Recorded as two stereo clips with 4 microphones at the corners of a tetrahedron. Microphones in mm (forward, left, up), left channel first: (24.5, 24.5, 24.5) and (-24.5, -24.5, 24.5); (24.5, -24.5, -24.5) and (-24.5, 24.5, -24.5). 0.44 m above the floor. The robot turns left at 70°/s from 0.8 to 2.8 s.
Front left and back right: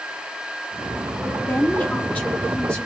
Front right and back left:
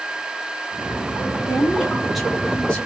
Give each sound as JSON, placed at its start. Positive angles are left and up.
{"t": 1.5, "sound": "a woman speaking", "azimuth_deg": 90, "distance_m": 1.0}